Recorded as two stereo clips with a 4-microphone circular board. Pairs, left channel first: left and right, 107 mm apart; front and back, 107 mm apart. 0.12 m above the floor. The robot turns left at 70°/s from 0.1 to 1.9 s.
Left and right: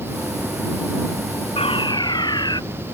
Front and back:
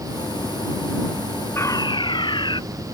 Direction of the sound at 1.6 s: 65° left.